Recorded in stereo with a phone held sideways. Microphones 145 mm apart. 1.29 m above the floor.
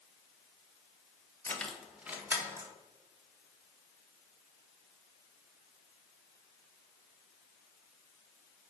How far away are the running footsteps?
No running footsteps in this recording.